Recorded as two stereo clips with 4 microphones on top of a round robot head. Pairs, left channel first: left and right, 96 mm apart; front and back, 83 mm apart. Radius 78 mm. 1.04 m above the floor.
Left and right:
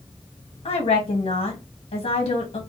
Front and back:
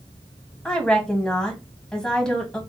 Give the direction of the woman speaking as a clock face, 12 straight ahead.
10 o'clock.